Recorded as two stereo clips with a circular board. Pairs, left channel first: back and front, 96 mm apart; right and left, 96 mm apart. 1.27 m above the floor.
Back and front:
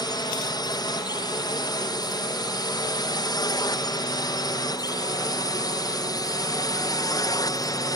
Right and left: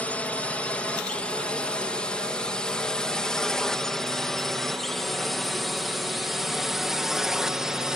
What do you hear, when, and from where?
0.0 s a drone: 160° right; by 8.0 s 170° left